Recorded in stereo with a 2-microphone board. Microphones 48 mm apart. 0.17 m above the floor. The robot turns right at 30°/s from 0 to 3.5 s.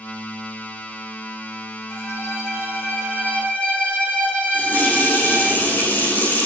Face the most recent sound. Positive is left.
turn(degrees=40)  # may be behind; listen again after turning